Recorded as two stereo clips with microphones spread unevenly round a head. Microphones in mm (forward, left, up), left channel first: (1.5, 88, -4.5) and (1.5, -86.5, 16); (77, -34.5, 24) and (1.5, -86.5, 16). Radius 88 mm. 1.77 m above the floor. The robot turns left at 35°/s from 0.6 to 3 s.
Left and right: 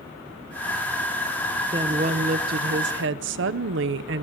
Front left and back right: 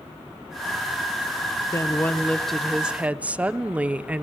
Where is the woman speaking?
25° right, 1.3 m; by 4.2 s 70° right, 1.3 m.